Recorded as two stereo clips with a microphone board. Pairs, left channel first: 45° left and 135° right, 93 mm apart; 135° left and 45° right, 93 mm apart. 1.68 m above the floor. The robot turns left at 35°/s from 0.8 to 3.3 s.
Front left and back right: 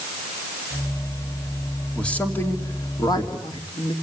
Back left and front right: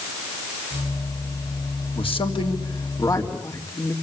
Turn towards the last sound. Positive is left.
turn(degrees=80)